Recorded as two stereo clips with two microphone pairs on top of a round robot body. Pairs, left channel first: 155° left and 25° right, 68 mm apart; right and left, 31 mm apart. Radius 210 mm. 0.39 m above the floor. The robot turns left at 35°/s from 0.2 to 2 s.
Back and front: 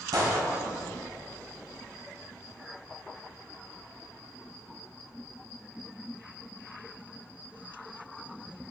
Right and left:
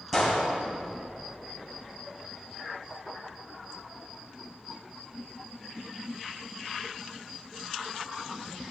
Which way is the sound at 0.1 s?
Straight ahead.